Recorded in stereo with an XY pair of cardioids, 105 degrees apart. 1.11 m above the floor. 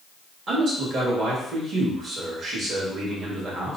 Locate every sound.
0.5 s a man speaking: 55° right, 1.4 m